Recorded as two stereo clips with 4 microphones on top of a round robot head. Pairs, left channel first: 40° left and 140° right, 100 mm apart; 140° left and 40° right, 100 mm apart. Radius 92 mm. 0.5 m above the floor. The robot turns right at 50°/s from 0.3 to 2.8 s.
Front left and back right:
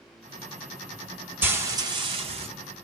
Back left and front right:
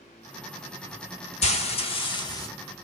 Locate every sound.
1.4 s frying: 145° left, 1.2 m; by 2.5 s 160° right, 1.2 m